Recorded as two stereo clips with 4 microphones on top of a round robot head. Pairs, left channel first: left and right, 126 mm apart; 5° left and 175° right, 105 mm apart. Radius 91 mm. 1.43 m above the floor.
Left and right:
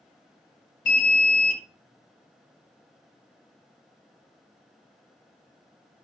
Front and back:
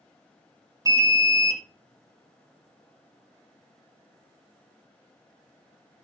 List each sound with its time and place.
0.8 s an alarm: 130° left, 1.5 m